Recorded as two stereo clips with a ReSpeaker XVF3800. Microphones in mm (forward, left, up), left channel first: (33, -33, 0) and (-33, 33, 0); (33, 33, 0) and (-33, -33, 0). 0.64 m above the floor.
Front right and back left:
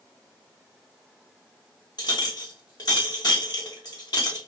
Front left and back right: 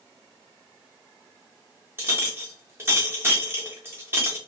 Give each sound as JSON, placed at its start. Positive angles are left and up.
{"t": 2.0, "sound": "a clink", "azimuth_deg": -75, "distance_m": 0.9}